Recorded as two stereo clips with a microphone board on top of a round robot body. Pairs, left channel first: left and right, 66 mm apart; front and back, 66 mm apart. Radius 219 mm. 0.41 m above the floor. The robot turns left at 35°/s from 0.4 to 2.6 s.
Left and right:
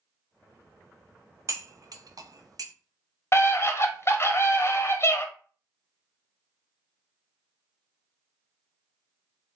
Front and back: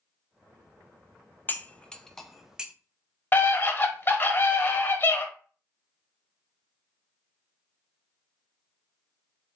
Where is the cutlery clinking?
60° right, 0.6 m; by 2.7 s 100° right, 0.6 m.